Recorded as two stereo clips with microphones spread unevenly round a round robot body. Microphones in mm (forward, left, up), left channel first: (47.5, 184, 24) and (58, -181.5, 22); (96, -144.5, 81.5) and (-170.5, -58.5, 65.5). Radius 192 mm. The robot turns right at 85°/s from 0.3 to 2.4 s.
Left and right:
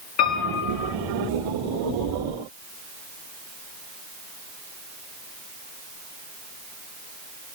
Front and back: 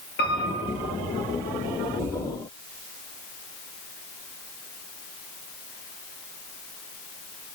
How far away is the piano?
About 7.5 m.